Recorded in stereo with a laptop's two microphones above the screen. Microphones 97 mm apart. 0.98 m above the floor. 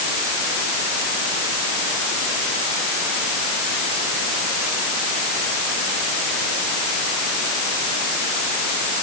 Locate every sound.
Only background noise.